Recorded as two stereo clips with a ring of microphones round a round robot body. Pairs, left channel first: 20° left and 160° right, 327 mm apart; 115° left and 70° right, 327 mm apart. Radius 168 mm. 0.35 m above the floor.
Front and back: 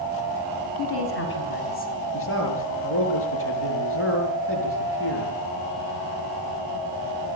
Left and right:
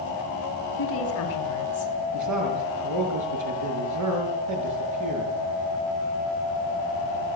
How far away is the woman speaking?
About 3.5 m.